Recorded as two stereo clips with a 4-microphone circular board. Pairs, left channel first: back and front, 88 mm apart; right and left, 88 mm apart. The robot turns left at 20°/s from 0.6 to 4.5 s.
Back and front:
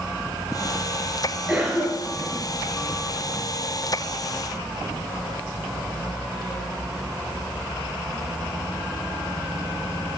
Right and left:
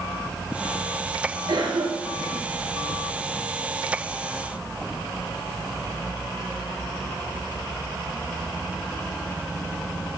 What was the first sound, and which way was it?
A cough, 80° left.